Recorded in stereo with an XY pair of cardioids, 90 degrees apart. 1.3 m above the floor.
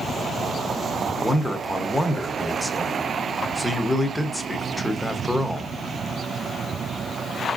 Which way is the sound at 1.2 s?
10° left.